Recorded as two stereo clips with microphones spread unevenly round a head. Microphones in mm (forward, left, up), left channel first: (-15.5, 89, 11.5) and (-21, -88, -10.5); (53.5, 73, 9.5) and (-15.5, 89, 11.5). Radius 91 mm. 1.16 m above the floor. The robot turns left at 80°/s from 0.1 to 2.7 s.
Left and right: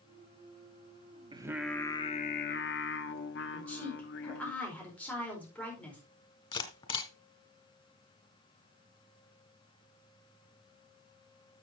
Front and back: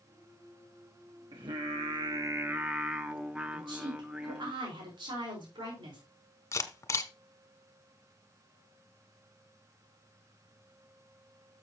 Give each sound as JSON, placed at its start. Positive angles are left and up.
{"t": 1.3, "sound": "singing", "azimuth_deg": -160, "distance_m": 1.1}
{"t": 3.5, "sound": "a woman speaking", "azimuth_deg": 170, "distance_m": 4.5}
{"t": 6.5, "sound": "a camera shutter", "azimuth_deg": 30, "distance_m": 1.6}